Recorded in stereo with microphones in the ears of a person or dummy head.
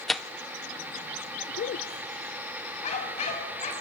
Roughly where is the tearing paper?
Centre.